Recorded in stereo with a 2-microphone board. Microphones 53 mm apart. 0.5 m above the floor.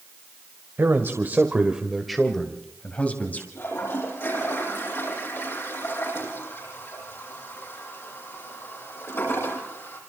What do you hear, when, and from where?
0.8 s a man speaking: 55° right (ahead or behind), 2 m; by 3.5 s 35° left (ahead or behind), 3 m
3.5 s a toilet flushing: 50° left (ahead or behind), 9.5 m